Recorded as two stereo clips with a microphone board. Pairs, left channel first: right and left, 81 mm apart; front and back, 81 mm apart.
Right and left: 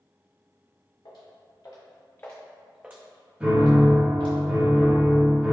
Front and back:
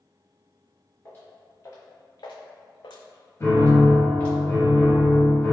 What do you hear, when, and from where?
1.1 s footsteps: 60° right, 1.4 m; by 4.4 s 75° left, 1.4 m
3.4 s a piano: 30° left, 1.6 m